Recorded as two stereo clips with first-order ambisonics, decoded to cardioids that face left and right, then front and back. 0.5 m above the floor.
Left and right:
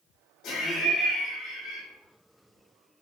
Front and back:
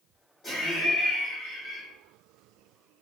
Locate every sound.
0.4 s laughter: 65° left, 0.8 m